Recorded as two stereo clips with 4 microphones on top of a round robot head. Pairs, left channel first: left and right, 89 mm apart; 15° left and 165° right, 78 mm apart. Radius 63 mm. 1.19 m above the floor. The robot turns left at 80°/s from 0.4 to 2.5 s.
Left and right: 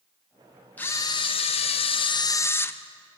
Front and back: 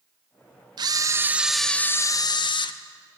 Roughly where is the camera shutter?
Behind.